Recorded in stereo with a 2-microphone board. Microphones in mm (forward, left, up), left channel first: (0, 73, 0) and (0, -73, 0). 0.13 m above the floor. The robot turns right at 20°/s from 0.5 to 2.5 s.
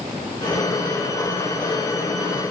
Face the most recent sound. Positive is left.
No sound to turn to.